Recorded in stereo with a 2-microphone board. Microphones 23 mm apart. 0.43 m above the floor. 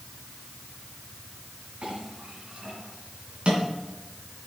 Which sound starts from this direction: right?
A clink, at 1.8 s.